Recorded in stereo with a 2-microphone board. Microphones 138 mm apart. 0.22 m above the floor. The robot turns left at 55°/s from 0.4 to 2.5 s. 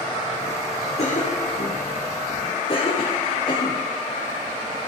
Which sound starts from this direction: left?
A cough, at 1.0 s.